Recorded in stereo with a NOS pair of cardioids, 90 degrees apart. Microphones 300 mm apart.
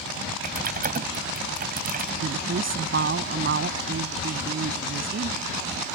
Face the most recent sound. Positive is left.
turn(degrees=-40)